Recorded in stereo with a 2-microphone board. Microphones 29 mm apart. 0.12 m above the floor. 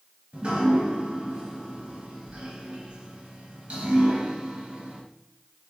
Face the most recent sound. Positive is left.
turn(degrees=-40)  # may be behind; listen again after turning